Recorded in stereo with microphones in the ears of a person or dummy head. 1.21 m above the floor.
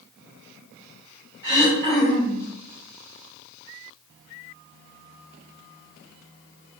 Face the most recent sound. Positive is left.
turn(degrees=-30)  # may be behind; listen again after turning